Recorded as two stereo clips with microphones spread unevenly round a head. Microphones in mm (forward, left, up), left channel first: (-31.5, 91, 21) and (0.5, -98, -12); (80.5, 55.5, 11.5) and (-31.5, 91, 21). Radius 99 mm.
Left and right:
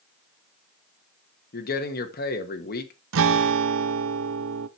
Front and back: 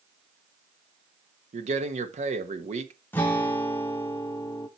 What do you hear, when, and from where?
1.5 s a man speaking: 140° left, 1.5 m
3.1 s a guitar: 95° right, 0.7 m